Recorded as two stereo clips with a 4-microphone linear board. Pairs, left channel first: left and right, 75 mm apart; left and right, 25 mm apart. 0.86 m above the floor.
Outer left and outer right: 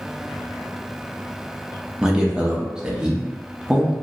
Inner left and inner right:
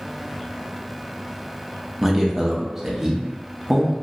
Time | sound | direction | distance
2.0 | a man speaking | 10° right (ahead or behind) | 0.7 m